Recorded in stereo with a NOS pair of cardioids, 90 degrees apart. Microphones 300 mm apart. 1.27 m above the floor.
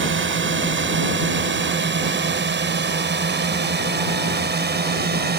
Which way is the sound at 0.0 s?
40° right.